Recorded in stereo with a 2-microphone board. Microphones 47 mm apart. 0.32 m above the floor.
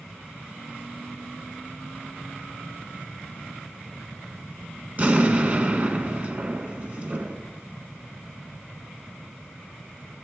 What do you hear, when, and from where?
5.0 s an explosion: 35° right (ahead or behind), 1.2 m